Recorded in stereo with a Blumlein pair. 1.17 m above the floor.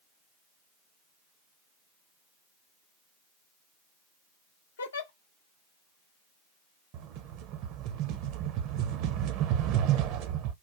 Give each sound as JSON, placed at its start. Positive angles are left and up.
{"t": 4.8, "sound": "a giggle", "azimuth_deg": 65, "distance_m": 0.5}
{"t": 6.9, "sound": "a rattle", "azimuth_deg": -40, "distance_m": 0.5}